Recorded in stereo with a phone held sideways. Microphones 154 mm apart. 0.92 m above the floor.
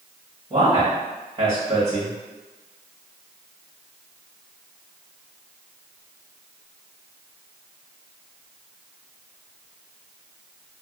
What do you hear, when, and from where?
0.5 s a man speaking: 30° right (ahead or behind), 1.4 m